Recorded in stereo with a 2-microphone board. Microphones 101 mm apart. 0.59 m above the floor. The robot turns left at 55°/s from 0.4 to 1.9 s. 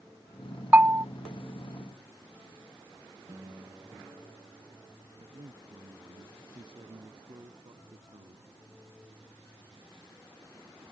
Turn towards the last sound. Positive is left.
turn(degrees=-55)  # may be behind; listen again after turning